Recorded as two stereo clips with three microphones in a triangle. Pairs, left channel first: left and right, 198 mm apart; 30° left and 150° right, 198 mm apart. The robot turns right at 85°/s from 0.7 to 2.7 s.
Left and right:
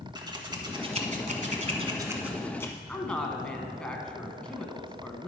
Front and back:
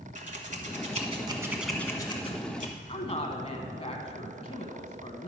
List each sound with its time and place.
0.1 s scissors: 145° right, 1.1 m; by 2.8 s 25° left, 1.1 m
2.9 s a woman speaking: 10° left, 1.1 m